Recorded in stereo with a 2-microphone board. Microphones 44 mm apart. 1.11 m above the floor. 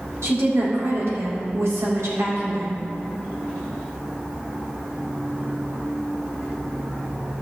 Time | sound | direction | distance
0.2 | a woman speaking | 80° right | 3 m